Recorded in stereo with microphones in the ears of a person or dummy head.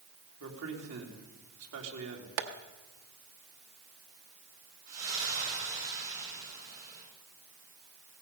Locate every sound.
0.4 s a man speaking: 80° right, 3 m
2.4 s tapping: 60° right (ahead or behind), 1.0 m
4.9 s a splash: 45° right (ahead or behind), 7.5 m